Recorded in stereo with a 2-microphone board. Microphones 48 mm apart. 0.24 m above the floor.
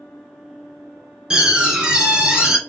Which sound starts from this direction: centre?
A door slam, at 1.3 s.